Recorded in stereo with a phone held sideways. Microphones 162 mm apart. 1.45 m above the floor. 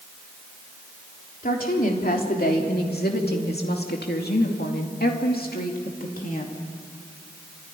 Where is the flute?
No flute in this recording.